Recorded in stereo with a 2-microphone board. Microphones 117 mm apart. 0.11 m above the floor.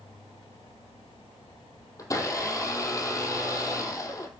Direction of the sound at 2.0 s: 30° left (ahead or behind).